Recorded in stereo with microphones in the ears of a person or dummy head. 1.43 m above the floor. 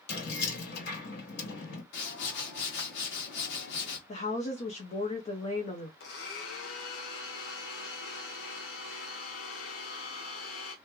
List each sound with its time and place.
0.1 s keys jangling: 65° left (ahead or behind), 1.6 m
1.9 s a whoosh: 70° left (ahead or behind), 1.5 m
4.1 s a woman speaking: 40° left (ahead or behind), 0.7 m
6.0 s a blender: 70° left (ahead or behind), 1.0 m